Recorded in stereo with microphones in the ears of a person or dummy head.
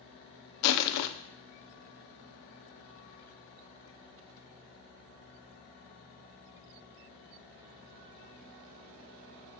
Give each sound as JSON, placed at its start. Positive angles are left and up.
{"t": 0.6, "sound": "crushing", "side_deg": 65, "distance_m": 0.6}